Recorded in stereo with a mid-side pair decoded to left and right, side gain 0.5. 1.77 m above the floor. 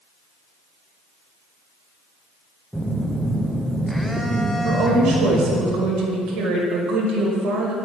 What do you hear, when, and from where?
2.7 s a phone buzzing: straight ahead, 0.8 m
4.6 s a woman speaking: 65° right, 2 m